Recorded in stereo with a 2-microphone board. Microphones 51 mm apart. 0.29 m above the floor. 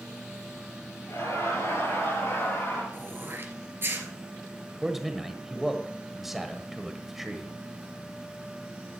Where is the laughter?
70° left (ahead or behind), 6.5 m; by 2.8 s 55° left (ahead or behind), 7 m.